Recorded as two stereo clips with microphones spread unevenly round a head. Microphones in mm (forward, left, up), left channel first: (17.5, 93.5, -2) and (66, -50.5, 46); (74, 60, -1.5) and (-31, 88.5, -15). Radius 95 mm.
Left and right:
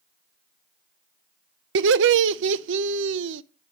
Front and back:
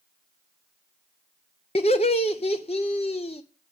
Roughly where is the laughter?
Right.